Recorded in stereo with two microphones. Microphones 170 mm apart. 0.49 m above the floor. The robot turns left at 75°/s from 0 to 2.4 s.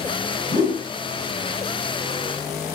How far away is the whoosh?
About 1.8 m.